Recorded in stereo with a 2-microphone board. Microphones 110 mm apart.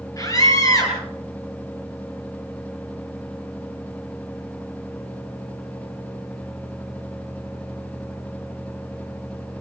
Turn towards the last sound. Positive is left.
turn(degrees=30)  # may be behind; listen again after turning